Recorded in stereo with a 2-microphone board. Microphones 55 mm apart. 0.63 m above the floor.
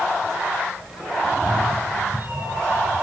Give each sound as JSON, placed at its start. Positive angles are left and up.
{"t": 1.2, "sound": "a cat meowing", "side_deg": -30, "distance_m": 4.5}